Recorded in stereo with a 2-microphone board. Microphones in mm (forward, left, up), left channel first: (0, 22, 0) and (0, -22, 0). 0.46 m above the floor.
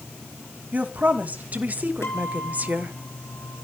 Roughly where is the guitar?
Left.